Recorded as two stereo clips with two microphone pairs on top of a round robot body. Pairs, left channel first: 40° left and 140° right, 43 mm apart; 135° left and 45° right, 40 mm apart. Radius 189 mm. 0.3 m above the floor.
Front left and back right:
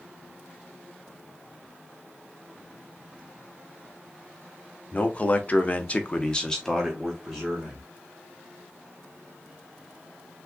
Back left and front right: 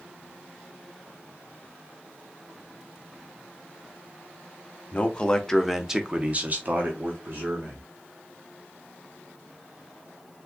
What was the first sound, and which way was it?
A man speaking, 85° left.